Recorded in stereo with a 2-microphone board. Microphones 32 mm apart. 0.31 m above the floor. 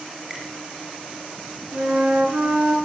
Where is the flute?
60° right (ahead or behind), 1.6 m.